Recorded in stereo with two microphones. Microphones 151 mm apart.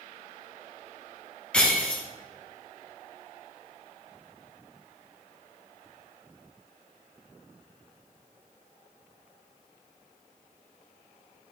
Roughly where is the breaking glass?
Centre.